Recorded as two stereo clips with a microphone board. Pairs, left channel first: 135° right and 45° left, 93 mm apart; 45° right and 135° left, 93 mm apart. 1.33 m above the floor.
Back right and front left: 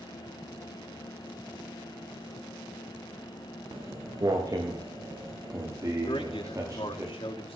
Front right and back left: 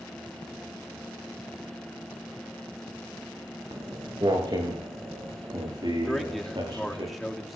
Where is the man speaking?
135° right, 3.5 m.